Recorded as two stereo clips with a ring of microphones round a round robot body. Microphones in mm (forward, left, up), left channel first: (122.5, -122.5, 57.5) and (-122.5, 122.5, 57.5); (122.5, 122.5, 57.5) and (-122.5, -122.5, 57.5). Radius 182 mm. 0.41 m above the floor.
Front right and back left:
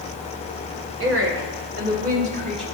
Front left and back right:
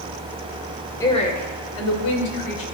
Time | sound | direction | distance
1.0 | a woman speaking | 120° left | 1.3 m